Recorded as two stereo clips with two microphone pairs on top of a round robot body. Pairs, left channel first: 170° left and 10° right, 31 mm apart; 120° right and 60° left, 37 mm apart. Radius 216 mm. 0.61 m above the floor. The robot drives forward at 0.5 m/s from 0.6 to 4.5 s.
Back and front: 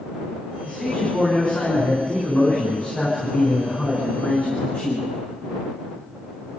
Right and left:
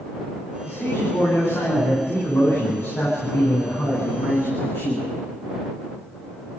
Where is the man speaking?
130° right, 6 m; by 5.1 s 140° right, 7.5 m.